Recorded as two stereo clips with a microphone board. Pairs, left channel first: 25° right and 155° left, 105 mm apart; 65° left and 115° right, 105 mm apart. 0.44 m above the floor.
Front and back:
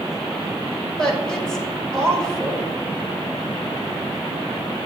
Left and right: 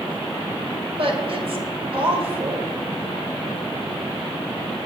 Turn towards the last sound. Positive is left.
turn(degrees=-105)